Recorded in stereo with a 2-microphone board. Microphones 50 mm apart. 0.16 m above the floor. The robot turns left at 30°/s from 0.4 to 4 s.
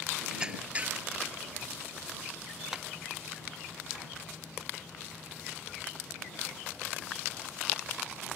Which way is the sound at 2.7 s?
10° right (ahead or behind).